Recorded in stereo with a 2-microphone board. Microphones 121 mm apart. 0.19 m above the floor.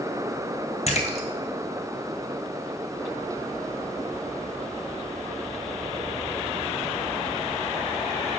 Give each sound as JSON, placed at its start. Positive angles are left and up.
{"t": 0.9, "sound": "a splash", "side_deg": 65, "distance_m": 1.0}